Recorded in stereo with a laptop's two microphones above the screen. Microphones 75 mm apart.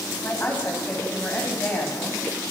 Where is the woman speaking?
25° left (ahead or behind), 6 m.